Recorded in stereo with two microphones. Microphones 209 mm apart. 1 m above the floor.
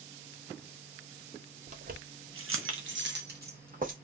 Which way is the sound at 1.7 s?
35° right (ahead or behind).